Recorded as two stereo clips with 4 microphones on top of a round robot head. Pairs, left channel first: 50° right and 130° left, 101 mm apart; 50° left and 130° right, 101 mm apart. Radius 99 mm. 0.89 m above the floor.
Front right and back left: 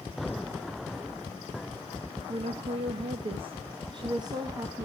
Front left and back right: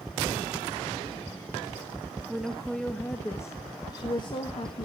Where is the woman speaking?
145° left, 1.3 m; by 4.9 s 70° left, 1.3 m.